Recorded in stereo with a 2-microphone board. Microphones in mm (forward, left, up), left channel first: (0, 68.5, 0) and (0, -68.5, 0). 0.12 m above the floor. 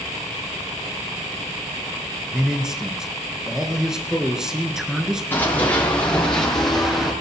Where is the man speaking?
5° right (ahead or behind), 1.9 m.